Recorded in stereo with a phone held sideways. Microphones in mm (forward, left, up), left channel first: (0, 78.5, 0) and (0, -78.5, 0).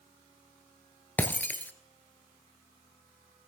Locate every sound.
1.2 s breaking glass: 10° left (ahead or behind), 1.1 m